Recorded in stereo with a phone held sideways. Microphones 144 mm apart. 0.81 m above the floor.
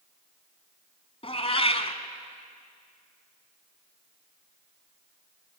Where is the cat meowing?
40° left (ahead or behind), 1.2 m.